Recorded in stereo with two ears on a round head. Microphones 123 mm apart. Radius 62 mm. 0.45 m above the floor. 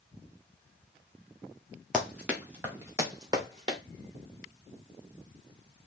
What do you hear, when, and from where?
1.9 s running footsteps: 5° right (ahead or behind), 4 m; by 3.8 s 35° right (ahead or behind), 4 m